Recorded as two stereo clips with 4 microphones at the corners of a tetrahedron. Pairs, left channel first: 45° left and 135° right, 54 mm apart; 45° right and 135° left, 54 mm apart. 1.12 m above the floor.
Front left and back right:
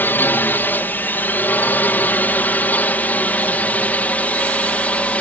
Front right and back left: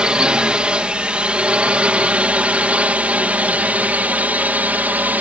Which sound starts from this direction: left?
A drone, at 0.0 s.